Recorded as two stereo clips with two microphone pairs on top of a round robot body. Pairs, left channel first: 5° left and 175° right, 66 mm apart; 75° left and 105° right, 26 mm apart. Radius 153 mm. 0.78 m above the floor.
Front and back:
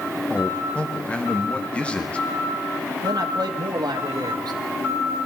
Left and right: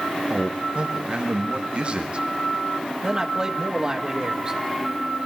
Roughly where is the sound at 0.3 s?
Ahead right.